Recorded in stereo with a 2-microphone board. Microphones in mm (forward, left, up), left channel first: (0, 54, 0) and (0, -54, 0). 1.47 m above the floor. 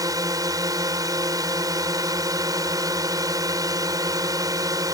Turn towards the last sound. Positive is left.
turn(degrees=-30)  # may be behind; listen again after turning